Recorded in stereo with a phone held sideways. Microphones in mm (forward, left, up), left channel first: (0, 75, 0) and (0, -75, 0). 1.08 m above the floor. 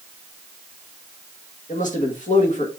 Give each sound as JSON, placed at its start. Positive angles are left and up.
{"t": 1.7, "sound": "a man speaking", "side_deg": 55, "distance_m": 1.4}